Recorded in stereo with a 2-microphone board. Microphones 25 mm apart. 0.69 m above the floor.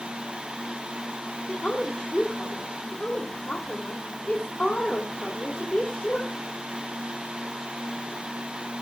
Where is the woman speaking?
65° left (ahead or behind), 3 m.